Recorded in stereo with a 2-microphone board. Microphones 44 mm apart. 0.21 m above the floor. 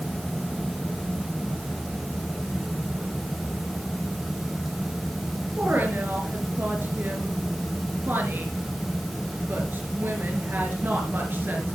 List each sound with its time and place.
5.6 s a woman speaking: 50° right (ahead or behind), 3.5 m